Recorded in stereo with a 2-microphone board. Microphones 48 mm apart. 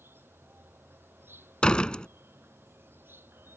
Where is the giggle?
No giggle in this recording.